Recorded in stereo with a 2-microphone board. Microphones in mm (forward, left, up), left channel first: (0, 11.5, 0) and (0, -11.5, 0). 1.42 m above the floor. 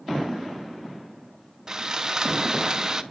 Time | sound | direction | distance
1.7 | sawing | 30° right (ahead or behind) | 0.6 m